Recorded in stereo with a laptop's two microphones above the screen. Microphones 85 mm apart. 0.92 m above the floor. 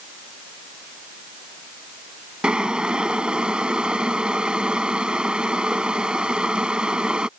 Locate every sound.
2.4 s boiling: 10° right (ahead or behind)